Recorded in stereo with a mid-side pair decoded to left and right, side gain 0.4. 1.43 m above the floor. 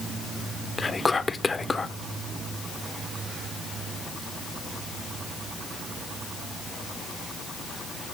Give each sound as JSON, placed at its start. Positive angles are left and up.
{"t": 0.8, "sound": "whispering", "azimuth_deg": 25, "distance_m": 1.1}